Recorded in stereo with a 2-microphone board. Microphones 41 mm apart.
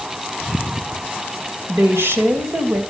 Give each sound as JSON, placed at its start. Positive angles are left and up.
{"t": 1.7, "sound": "a woman speaking", "side_deg": -80, "distance_m": 3.0}